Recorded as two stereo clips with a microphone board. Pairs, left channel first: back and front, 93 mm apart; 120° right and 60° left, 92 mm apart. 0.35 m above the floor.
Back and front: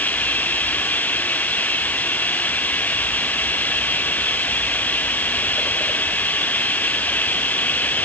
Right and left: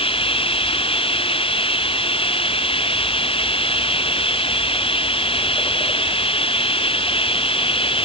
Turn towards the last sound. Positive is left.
turn(degrees=-105)